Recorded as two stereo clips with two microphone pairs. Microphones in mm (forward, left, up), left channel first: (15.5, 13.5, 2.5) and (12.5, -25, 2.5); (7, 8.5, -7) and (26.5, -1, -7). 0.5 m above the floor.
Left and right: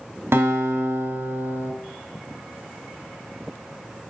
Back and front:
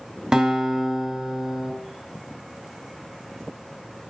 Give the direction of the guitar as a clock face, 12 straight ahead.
3 o'clock.